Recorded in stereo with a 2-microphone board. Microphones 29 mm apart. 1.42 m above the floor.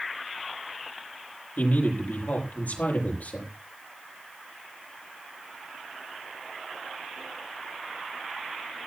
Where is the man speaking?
65° left (ahead or behind), 7.5 m.